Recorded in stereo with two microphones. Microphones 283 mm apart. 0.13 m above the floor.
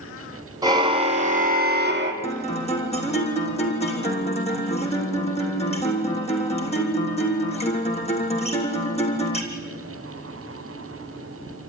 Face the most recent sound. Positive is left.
turn(degrees=20)  # may be behind; listen again after turning